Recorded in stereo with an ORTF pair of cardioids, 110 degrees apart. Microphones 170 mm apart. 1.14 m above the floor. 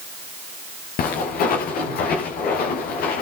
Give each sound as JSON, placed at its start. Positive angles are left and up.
{"t": 1.0, "sound": "footsteps", "azimuth_deg": 70, "distance_m": 5.5}